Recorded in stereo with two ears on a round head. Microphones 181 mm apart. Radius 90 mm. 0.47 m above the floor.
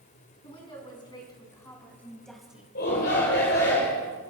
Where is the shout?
50° left (ahead or behind), 2.5 m.